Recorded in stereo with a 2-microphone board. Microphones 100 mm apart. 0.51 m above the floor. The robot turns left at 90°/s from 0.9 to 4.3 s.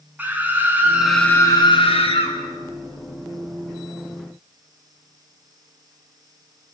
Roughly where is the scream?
Behind.